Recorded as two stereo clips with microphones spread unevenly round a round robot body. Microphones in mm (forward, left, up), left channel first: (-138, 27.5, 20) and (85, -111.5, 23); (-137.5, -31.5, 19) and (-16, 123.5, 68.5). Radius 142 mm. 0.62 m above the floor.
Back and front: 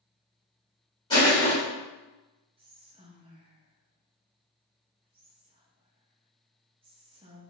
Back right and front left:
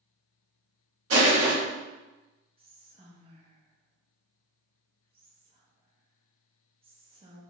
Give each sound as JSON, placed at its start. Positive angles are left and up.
{"t": 1.1, "sound": "crushing", "azimuth_deg": 70, "distance_m": 1.5}
{"t": 2.6, "sound": "whispering", "azimuth_deg": -5, "distance_m": 0.5}